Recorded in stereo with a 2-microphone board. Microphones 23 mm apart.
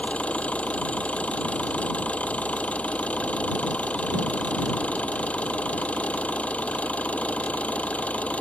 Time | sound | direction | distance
0.0 | an engine running | 75° left (ahead or behind) | ?